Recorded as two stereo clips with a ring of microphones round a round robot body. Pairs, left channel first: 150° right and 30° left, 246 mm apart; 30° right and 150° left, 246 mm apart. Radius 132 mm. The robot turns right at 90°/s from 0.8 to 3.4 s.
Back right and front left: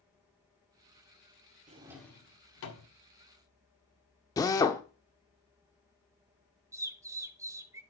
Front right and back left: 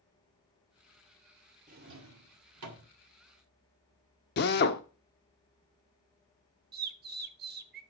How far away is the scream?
No scream in this recording.